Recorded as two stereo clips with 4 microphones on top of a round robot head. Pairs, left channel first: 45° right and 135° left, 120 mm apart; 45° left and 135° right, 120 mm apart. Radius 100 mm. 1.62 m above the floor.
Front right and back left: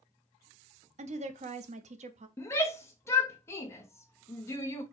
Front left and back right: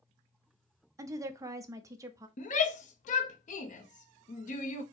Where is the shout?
25° left, 0.8 m.